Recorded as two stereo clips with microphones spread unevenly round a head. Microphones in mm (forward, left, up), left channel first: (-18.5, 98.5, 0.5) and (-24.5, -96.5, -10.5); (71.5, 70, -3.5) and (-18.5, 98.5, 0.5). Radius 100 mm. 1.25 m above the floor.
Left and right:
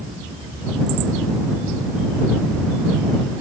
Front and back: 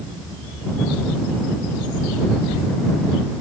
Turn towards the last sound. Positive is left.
No sound to turn to.